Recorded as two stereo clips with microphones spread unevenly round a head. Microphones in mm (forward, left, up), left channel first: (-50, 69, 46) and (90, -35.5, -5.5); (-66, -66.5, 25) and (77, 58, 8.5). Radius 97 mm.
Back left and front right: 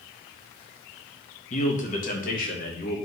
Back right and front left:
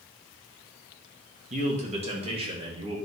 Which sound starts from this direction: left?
A man speaking, at 1.5 s.